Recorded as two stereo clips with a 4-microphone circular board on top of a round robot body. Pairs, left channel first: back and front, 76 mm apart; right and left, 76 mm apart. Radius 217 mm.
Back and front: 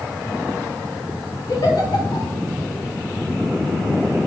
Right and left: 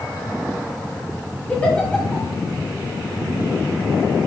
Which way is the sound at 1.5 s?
160° right.